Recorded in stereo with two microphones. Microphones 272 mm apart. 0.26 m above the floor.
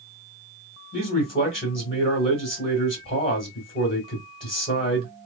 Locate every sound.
0.9 s a man speaking: 30° left (ahead or behind), 1.4 m